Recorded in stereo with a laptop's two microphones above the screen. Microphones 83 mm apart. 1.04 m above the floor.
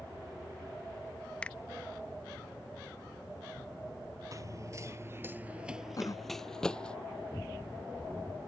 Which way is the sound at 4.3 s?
40° right (ahead or behind).